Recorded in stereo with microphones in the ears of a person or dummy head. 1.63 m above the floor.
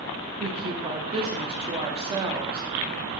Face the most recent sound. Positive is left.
turn(degrees=-25)  # may be behind; listen again after turning